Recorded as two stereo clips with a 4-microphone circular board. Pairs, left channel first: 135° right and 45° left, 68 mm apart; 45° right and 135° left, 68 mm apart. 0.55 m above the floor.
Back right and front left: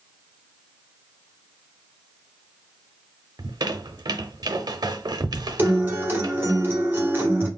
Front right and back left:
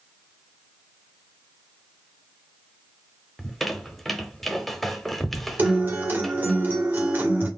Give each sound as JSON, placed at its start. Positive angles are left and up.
{"t": 3.4, "sound": "a squeak", "azimuth_deg": 40, "distance_m": 0.7}
{"t": 5.6, "sound": "a guitar", "azimuth_deg": 90, "distance_m": 1.1}